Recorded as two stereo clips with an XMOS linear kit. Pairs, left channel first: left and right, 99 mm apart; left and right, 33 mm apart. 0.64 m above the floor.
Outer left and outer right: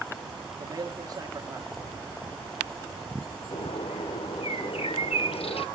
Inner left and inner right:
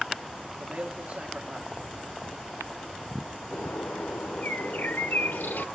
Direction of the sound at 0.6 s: 45° right (ahead or behind).